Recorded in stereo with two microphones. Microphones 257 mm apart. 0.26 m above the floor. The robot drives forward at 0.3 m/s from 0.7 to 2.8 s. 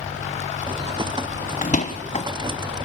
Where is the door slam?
30° left (ahead or behind), 1.2 m; by 2.3 s 25° left (ahead or behind), 1.4 m.